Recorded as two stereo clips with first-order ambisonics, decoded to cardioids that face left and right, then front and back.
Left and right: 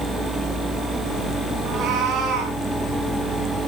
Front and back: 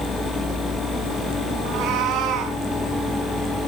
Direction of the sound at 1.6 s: 145° right.